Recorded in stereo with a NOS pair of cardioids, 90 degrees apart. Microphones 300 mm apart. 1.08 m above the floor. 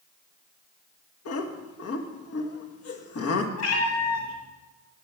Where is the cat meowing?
65° left, 2 m.